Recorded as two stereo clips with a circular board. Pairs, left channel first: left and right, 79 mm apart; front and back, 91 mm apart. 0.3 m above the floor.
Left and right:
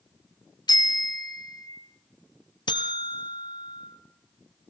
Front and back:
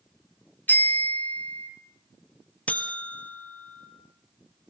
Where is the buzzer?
75° left, 1.5 m.